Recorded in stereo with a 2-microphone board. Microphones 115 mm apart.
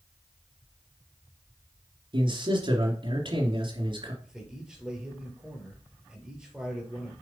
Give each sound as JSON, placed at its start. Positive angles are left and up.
{"t": 2.1, "sound": "a man speaking", "side_deg": -45, "distance_m": 2.5}
{"t": 4.2, "sound": "a man speaking", "side_deg": -5, "distance_m": 3.0}